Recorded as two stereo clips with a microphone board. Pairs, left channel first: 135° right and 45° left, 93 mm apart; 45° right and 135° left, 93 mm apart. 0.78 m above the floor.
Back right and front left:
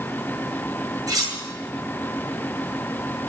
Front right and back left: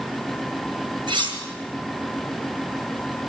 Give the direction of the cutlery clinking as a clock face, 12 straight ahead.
9 o'clock.